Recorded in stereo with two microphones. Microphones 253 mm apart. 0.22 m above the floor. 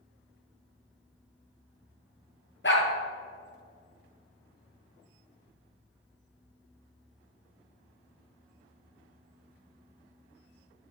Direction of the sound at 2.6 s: 50° left (ahead or behind).